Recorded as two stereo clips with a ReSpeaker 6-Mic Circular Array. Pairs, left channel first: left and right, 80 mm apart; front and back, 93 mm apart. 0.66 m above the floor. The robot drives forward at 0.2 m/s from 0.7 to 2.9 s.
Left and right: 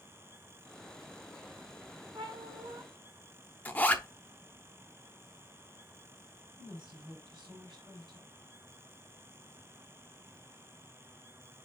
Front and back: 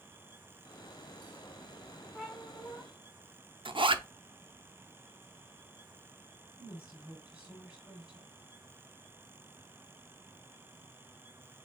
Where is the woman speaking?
100° right, 3.5 m.